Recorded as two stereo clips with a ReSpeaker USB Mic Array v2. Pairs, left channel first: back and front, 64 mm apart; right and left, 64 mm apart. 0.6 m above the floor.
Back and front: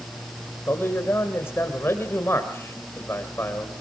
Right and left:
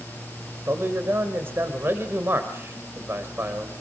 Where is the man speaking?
135° left, 3 m.